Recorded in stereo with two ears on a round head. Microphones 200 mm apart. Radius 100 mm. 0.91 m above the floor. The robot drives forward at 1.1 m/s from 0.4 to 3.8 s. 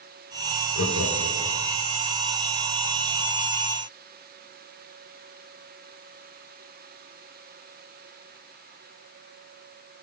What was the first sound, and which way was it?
Laughter, 65° left (ahead or behind).